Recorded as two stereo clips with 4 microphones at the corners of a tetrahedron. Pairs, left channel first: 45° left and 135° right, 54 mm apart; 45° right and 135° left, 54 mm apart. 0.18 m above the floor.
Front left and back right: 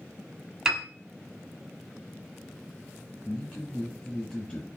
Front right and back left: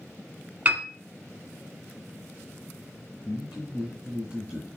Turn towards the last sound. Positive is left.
turn(degrees=100)